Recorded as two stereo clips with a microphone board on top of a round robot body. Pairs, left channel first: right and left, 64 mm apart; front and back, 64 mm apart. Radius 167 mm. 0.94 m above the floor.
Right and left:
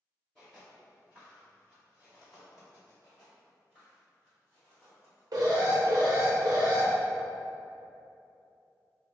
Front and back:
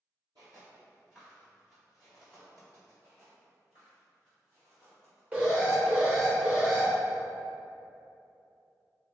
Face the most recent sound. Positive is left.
turn(degrees=110)